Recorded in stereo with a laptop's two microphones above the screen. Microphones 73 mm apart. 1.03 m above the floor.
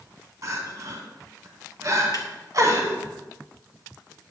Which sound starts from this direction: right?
Crying, at 0.4 s.